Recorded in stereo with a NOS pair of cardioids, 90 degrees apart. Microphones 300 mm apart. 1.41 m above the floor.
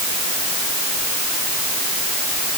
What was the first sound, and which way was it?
Only background noise.